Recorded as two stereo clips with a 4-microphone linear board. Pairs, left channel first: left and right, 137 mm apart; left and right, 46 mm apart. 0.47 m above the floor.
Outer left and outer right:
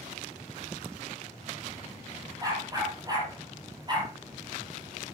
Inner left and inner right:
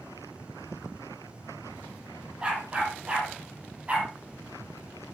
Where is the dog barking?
25° right (ahead or behind), 6 m; by 4.1 s 35° right (ahead or behind), 6 m.